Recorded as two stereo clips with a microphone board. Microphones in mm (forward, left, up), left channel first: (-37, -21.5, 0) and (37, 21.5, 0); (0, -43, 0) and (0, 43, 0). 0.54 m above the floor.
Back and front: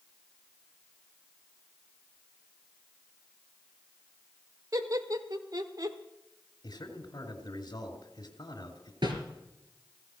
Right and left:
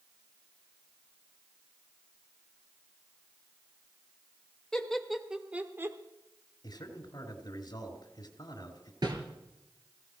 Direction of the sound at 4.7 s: 10° right.